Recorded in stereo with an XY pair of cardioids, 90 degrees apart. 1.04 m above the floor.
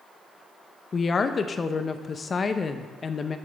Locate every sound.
0.9 s a woman speaking: 40° left, 0.5 m